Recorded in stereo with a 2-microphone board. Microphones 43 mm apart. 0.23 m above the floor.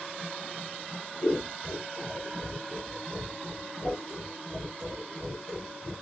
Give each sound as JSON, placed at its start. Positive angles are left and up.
{"t": 1.2, "sound": "scissors", "side_deg": 10, "distance_m": 1.7}